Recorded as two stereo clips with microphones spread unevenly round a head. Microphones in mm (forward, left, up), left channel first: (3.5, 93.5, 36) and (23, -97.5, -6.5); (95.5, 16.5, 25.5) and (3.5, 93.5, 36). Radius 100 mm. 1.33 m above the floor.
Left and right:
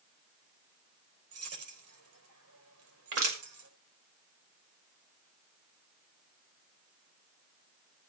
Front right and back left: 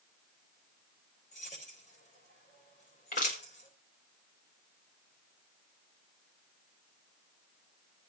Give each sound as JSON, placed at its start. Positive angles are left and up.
{"t": 1.3, "sound": "keys jangling", "azimuth_deg": -90, "distance_m": 4.0}
{"t": 3.1, "sound": "crushing", "azimuth_deg": -65, "distance_m": 6.0}